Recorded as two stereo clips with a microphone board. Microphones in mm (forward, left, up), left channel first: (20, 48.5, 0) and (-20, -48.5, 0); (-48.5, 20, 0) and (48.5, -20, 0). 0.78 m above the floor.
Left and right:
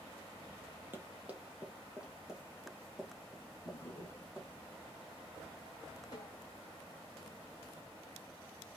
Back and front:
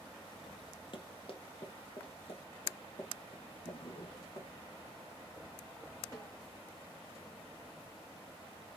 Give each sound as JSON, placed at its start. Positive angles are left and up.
{"t": 0.9, "sound": "running footsteps", "azimuth_deg": 180, "distance_m": 1.4}
{"t": 3.6, "sound": "a drawer", "azimuth_deg": 130, "distance_m": 1.3}
{"t": 6.1, "sound": "a snare drum", "azimuth_deg": 110, "distance_m": 3.0}